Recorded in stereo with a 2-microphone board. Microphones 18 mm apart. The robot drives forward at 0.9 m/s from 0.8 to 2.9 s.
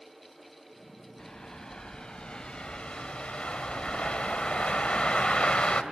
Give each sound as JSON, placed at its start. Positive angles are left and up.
{"t": 1.2, "sound": "a bird", "side_deg": 35, "distance_m": 3.0}